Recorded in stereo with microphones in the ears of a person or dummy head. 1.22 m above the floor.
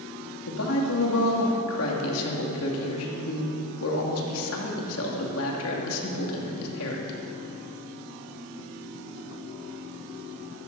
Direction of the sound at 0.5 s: 75° left (ahead or behind).